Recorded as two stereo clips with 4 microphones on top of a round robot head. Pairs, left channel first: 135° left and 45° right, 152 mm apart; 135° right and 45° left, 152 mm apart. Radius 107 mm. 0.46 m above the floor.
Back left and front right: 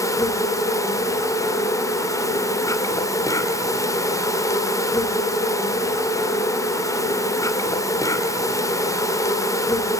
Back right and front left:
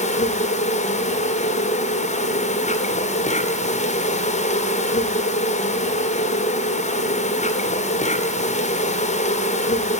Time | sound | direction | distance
0.0 | an insect | 160° right | 2.5 m